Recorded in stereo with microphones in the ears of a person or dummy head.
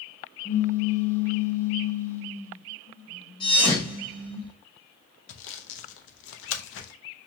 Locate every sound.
0.5 s a pop: 15° left (ahead or behind), 0.7 m
3.4 s a thud: 30° left (ahead or behind), 1.7 m
5.3 s sawing: 75° left (ahead or behind), 0.6 m